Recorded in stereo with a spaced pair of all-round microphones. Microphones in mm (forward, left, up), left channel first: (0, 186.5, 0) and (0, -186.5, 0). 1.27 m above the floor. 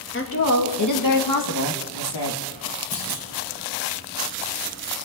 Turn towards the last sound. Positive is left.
turn(degrees=75)  # may be behind; listen again after turning